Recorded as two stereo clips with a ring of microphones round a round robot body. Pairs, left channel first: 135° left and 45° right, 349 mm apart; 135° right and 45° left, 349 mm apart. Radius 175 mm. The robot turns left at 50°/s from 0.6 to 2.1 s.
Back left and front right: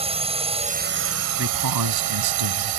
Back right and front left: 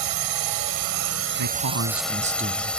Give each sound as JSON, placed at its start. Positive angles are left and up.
{"t": 0.0, "sound": "a drone", "azimuth_deg": 25}
{"t": 1.4, "sound": "a man speaking", "azimuth_deg": 10}